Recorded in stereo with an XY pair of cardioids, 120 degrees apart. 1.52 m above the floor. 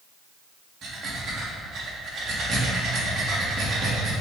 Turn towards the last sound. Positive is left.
turn(degrees=-50)